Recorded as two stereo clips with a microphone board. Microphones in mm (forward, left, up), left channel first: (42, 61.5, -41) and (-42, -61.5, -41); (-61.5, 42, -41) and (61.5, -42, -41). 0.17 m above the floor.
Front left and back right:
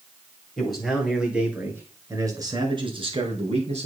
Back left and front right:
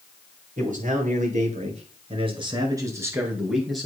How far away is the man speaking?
About 3 m.